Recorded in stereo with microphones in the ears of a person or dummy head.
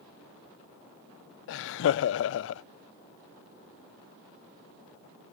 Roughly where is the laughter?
Left.